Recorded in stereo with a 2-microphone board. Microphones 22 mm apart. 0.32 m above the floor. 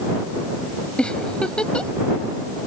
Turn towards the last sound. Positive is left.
turn(degrees=50)  # may be behind; listen again after turning